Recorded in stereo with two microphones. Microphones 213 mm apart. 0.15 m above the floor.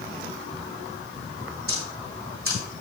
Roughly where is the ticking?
Right.